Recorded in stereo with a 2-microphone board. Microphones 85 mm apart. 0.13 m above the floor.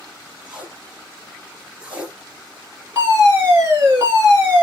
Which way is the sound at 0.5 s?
10° right (ahead or behind).